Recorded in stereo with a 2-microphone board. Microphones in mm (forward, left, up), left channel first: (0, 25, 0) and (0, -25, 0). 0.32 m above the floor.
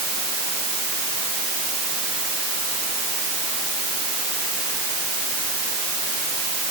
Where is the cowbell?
No cowbell in this recording.